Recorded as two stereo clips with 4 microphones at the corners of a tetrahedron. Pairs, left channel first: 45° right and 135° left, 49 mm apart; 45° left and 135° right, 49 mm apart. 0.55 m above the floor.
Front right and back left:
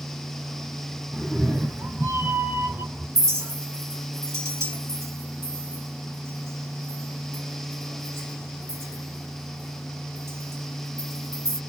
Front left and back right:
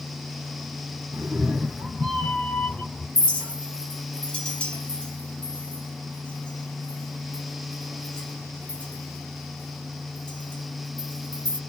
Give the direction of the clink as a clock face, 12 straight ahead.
8 o'clock.